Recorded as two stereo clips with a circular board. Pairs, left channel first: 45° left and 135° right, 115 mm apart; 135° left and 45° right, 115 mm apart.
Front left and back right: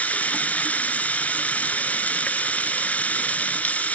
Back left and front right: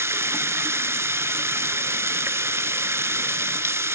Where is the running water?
15° right, 0.7 m.